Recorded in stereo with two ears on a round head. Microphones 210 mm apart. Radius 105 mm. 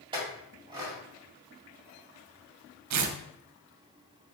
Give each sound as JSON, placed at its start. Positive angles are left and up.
{"t": 0.1, "sound": "a clink", "side_deg": -20, "distance_m": 1.8}
{"t": 2.9, "sound": "tearing paper", "side_deg": -80, "distance_m": 0.6}